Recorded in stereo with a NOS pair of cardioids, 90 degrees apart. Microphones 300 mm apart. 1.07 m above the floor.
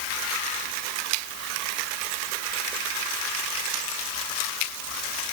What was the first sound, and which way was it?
Only background noise.